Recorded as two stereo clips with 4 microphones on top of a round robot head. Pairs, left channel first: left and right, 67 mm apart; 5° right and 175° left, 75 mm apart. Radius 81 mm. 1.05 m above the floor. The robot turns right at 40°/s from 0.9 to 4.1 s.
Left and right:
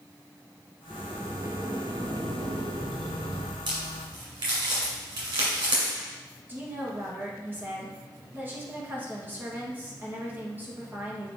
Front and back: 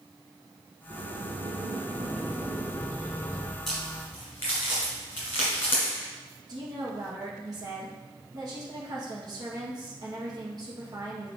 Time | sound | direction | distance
0.9 | a sliding door | 165° right | 0.5 m
3.7 | a crack | 90° right | 1.8 m
6.5 | a woman speaking | 150° right | 1.4 m